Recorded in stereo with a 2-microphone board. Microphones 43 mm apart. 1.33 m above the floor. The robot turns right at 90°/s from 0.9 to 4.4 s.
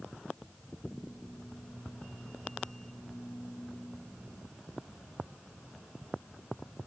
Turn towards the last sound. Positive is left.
No sound to turn to.